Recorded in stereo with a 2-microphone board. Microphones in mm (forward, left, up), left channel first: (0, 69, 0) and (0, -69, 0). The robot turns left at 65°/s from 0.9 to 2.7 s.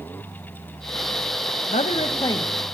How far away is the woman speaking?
About 1.1 m.